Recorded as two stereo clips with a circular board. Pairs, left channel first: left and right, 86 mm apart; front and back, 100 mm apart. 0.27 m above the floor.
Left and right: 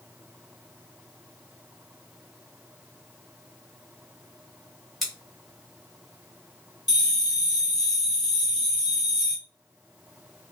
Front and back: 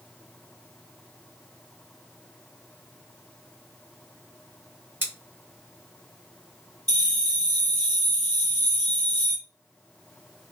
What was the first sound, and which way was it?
Scissors, straight behind.